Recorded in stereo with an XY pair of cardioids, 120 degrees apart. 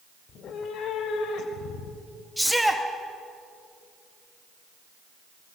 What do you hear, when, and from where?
0.3 s a cat meowing: 55° left, 2 m; by 2.3 s 75° left, 4 m
2.4 s a shout: straight ahead, 2.5 m